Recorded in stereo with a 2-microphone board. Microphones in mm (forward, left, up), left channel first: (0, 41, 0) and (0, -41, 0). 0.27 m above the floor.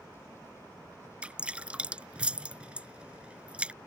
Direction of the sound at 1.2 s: 15° right (ahead or behind).